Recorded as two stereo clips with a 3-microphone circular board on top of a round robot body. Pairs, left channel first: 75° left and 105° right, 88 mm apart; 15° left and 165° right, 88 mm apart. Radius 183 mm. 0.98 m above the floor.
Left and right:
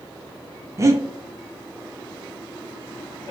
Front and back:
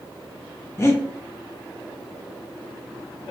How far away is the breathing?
About 0.6 m.